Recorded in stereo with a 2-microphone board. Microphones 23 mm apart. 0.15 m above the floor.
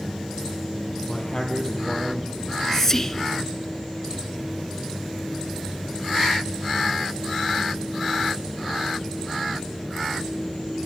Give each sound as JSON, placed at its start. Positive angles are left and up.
{"t": 1.1, "sound": "a man speaking", "side_deg": 25, "distance_m": 4.0}
{"t": 2.4, "sound": "whispering", "side_deg": 15, "distance_m": 1.5}